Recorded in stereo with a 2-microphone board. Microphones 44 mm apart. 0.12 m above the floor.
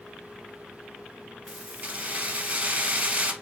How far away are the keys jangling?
About 1.2 m.